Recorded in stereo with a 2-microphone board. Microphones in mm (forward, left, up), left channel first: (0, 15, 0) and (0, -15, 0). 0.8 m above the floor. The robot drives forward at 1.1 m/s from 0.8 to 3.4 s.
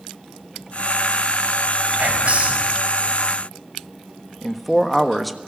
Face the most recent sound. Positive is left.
turn(degrees=5)  # may be behind; listen again after turning